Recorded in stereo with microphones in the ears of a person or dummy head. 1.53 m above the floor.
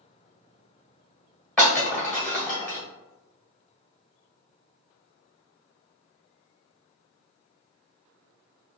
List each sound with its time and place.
1.6 s breaking glass: 15° left (ahead or behind), 1.7 m